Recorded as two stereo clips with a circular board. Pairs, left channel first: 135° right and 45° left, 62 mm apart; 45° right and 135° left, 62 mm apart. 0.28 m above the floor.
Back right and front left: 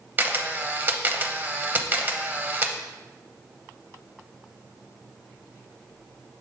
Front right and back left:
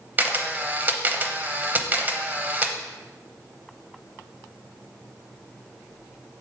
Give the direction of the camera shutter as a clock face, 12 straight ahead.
9 o'clock.